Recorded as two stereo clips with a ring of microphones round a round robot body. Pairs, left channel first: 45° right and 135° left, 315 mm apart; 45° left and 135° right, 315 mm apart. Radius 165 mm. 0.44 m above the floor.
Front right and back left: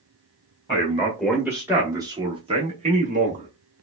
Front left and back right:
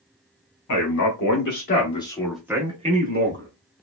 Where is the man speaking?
40° left, 1.3 m; by 3.5 s 170° right, 1.2 m.